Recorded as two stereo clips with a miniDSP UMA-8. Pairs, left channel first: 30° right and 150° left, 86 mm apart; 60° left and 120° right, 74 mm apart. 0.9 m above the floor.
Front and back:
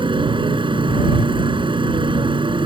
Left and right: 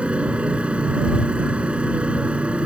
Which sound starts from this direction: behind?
A motorcycle, at 0.0 s.